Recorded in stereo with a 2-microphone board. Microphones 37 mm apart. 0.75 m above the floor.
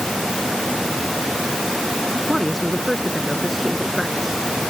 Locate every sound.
2.3 s a man speaking: centre (ahead or behind); by 4.5 s 5° right (ahead or behind)